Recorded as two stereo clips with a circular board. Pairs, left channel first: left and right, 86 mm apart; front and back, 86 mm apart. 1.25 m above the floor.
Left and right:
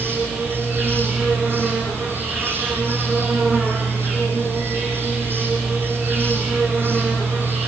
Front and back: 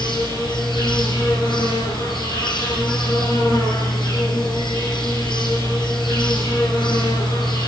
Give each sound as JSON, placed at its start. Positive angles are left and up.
{"t": 0.0, "sound": "an insect", "azimuth_deg": -20, "distance_m": 8.5}